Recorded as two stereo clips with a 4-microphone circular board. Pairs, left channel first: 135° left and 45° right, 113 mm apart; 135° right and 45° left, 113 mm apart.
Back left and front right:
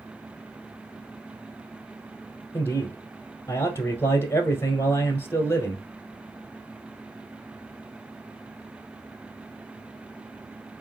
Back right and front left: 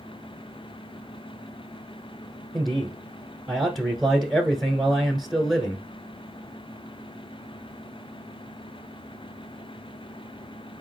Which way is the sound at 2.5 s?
135° left.